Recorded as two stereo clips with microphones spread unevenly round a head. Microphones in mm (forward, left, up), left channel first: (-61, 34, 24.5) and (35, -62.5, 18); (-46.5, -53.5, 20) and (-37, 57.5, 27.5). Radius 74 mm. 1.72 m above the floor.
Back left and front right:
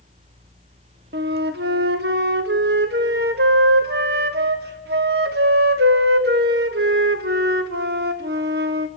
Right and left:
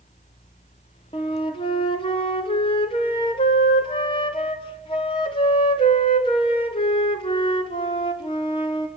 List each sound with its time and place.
1.1 s a flute: 40° right, 1.3 m